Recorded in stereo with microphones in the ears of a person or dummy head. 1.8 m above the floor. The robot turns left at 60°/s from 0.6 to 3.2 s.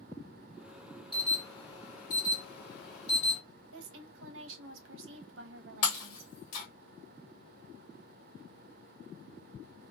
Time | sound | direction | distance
1.1 | an alarm | straight behind | 1.4 m
3.7 | a woman speaking | 75° right (ahead or behind) | 0.7 m
5.8 | breaking glass | 45° left (ahead or behind) | 1.3 m